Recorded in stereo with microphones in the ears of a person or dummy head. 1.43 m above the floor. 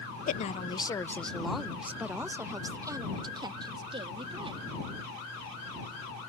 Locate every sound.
0.3 s a woman speaking: 50° left (ahead or behind); by 4.6 s 25° right (ahead or behind)